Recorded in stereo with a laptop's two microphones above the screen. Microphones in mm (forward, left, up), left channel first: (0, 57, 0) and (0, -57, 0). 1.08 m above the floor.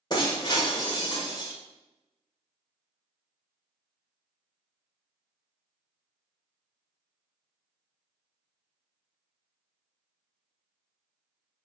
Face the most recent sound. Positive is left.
turn(degrees=40)  # may be behind; listen again after turning